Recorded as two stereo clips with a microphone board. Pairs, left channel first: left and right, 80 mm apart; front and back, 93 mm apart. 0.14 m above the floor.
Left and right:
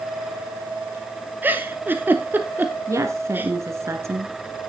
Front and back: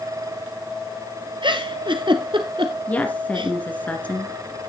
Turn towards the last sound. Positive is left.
turn(degrees=-65)